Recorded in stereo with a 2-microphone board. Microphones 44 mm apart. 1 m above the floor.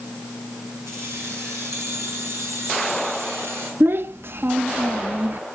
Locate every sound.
0.9 s keys jangling: 85° right, 6.5 m; by 3.7 s 80° right, 8 m
3.8 s a child speaking: 60° right (ahead or behind), 0.5 m